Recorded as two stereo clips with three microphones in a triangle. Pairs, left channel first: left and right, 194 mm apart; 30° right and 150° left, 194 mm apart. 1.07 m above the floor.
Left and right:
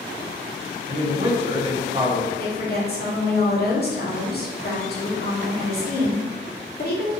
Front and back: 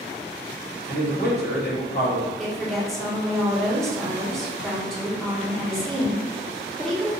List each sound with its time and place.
0.9 s a man speaking: 30° right, 1.2 m
2.4 s a woman speaking: 55° left, 1.2 m